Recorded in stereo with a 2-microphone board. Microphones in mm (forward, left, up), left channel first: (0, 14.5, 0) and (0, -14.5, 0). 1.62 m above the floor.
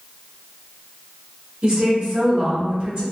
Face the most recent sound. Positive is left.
turn(degrees=-80)